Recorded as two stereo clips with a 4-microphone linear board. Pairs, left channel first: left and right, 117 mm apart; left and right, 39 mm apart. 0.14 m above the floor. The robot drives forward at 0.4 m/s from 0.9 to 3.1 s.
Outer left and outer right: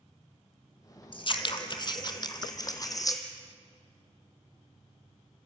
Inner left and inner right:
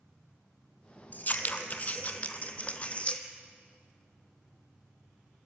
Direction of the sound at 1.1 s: 45° left (ahead or behind).